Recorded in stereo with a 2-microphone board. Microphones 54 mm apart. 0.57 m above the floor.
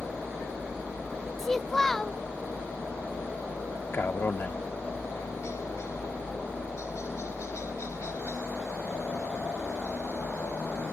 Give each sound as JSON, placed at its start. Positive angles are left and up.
{"t": 0.0, "sound": "a helicopter", "side_deg": 60}
{"t": 1.4, "sound": "a child speaking", "side_deg": 5}
{"t": 3.9, "sound": "a man speaking", "side_deg": 40}